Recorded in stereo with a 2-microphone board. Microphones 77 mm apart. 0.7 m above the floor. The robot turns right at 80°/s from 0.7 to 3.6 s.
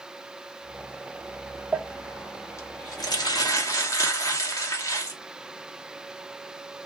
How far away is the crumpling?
About 1.0 m.